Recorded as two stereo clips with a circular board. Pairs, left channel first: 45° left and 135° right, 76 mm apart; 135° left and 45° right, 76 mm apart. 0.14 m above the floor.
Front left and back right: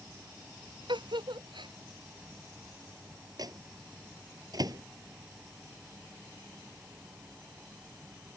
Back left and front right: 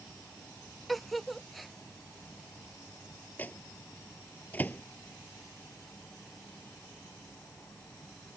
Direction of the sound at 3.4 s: 160° right.